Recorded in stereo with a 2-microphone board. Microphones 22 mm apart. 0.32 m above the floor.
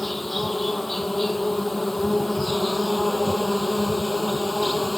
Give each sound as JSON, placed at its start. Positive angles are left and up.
{"t": 0.0, "sound": "an insect", "side_deg": 10}